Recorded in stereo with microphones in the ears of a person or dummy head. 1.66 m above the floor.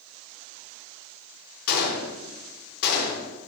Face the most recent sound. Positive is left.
turn(degrees=55)  # may be behind; listen again after turning